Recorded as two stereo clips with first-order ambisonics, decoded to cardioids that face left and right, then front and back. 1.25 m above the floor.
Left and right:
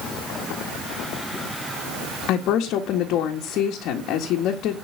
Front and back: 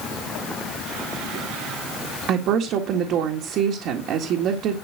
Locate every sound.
2.3 s a woman speaking: 135° left, 1.8 m